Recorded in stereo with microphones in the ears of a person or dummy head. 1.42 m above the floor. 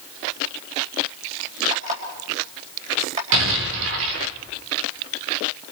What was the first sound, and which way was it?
An alarm clock, 40° right (ahead or behind).